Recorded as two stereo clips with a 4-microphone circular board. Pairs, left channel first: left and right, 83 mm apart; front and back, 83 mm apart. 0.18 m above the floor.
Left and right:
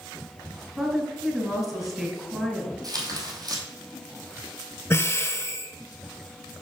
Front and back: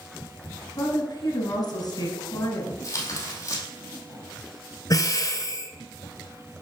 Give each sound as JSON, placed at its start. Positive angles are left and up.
{"t": 0.8, "sound": "a woman speaking", "azimuth_deg": -15, "distance_m": 1.7}
{"t": 2.8, "sound": "tearing paper", "azimuth_deg": -50, "distance_m": 1.6}
{"t": 4.9, "sound": "breathing", "azimuth_deg": 35, "distance_m": 0.8}